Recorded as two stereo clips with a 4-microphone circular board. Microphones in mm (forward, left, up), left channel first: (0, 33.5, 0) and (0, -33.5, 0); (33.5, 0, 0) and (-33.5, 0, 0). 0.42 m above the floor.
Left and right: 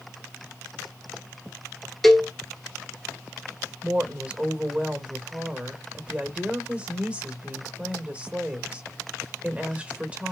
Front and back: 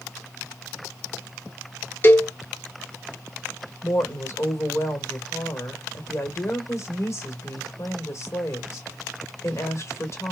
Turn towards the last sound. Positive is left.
turn(degrees=-25)